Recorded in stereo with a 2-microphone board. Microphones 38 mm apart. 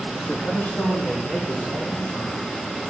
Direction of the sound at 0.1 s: 35° left (ahead or behind).